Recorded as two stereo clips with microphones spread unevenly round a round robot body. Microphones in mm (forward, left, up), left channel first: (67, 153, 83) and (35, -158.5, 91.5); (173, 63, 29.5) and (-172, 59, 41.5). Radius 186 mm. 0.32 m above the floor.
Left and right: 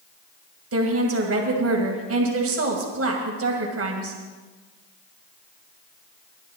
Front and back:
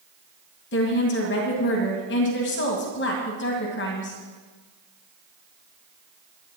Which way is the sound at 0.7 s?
55° right.